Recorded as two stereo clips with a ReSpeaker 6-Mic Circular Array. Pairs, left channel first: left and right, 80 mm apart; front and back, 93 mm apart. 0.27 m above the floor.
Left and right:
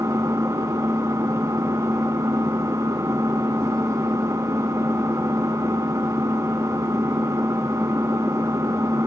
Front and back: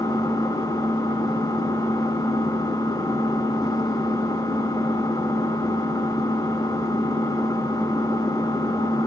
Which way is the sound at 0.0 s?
40° right.